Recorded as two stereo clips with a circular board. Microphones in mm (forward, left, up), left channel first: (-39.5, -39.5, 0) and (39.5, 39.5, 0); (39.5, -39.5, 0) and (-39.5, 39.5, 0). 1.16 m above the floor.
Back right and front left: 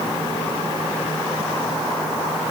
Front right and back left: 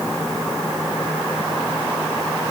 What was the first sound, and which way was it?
Only background noise.